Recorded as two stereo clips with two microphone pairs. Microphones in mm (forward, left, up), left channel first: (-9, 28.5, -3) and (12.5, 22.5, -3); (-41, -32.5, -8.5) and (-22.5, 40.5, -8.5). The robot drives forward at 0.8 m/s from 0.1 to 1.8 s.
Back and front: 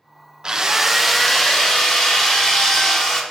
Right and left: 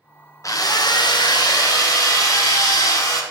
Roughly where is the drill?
Right.